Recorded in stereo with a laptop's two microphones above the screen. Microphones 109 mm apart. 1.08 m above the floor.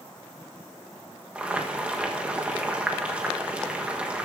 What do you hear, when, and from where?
1.4 s boiling: 10° right (ahead or behind), 1.3 m